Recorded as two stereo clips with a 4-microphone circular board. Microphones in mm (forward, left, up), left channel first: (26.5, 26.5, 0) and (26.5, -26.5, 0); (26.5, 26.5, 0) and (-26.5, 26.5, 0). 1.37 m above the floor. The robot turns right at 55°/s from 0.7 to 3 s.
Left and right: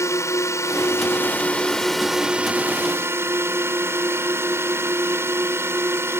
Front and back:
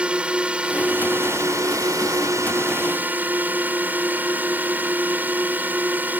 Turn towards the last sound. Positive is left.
turn(degrees=-125)